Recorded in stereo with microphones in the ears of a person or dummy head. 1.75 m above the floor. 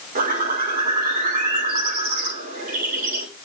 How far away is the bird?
About 5.5 m.